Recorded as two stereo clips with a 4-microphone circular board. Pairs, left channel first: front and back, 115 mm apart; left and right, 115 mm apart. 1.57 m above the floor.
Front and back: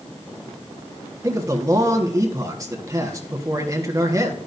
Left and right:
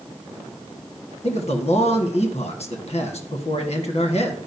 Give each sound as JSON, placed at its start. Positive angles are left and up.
{"t": 1.2, "sound": "a man speaking", "azimuth_deg": 120, "distance_m": 1.4}